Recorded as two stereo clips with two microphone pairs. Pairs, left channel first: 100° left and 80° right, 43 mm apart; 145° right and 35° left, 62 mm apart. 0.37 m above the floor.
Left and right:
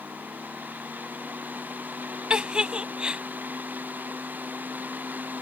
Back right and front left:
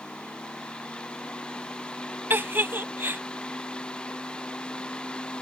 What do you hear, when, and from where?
2.3 s a giggle: 15° right